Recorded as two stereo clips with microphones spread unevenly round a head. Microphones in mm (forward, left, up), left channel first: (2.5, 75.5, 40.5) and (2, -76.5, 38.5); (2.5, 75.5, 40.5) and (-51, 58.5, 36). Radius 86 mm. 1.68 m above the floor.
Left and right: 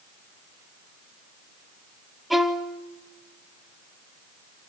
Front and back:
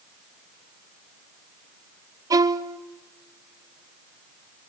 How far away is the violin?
About 0.9 m.